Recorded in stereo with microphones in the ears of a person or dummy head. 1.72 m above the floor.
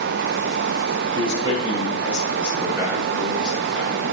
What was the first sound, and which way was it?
A man speaking, 30° right (ahead or behind).